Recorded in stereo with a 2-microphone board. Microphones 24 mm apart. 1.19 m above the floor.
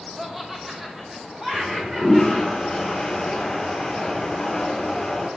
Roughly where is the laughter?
Centre.